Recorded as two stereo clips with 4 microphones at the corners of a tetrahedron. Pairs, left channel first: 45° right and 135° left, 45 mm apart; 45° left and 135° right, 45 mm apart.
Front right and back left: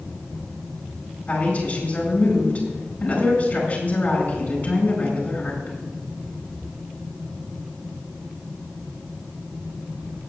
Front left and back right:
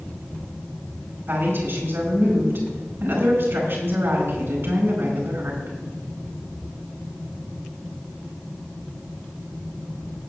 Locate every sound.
1.3 s a woman speaking: 100° right, 5 m